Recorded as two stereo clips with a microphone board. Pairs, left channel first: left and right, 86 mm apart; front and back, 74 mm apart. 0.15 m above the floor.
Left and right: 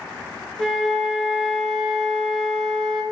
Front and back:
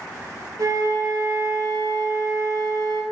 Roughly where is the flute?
Behind.